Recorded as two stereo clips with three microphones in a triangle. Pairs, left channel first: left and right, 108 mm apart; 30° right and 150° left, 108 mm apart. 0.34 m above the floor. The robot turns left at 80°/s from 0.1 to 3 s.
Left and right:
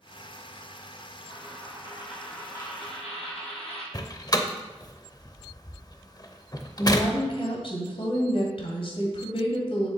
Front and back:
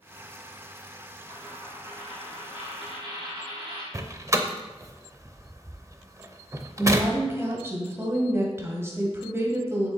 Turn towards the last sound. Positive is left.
turn(degrees=90)